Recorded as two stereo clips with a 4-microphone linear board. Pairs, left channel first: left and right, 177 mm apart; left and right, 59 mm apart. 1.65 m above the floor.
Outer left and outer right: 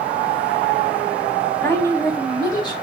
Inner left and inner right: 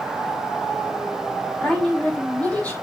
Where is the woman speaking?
15° left (ahead or behind), 4.5 m; by 2.7 s 25° left (ahead or behind), 4.5 m.